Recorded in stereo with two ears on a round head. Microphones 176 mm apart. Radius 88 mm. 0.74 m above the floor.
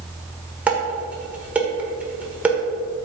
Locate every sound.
0.7 s dishes clattering: 10° right (ahead or behind), 1.6 m